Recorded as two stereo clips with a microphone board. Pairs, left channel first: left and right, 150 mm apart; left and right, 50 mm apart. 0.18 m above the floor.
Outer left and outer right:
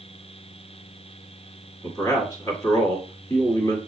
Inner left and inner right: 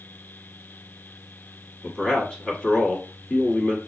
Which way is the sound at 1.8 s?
25° left (ahead or behind).